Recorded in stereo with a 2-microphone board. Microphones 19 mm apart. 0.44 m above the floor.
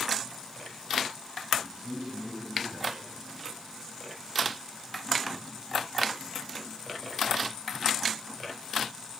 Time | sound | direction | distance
1.6 | a man speaking | 50° right (ahead or behind) | 5.5 m